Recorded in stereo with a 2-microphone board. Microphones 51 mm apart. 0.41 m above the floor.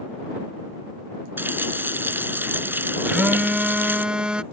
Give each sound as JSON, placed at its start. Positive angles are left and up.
{"t": 1.4, "sound": "a running tap", "side_deg": -45}
{"t": 3.0, "sound": "a phone buzzing", "side_deg": -20}